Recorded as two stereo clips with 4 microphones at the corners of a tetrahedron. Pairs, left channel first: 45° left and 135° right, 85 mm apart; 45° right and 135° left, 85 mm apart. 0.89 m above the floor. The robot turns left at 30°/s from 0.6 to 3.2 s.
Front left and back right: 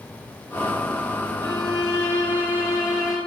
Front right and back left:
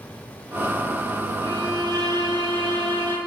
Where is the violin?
170° right, 4.5 m; by 3.2 s 135° left, 4.5 m.